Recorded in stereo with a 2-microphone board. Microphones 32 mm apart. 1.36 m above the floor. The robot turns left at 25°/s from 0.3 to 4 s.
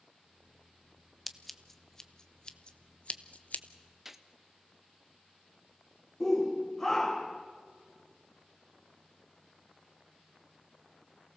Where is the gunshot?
10° right (ahead or behind), 1.0 m.